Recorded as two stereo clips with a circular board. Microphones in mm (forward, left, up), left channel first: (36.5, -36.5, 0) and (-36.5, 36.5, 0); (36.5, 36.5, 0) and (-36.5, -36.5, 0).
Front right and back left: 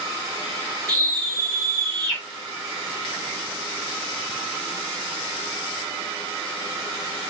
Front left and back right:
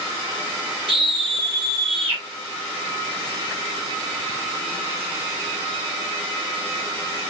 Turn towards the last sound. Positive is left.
turn(degrees=-170)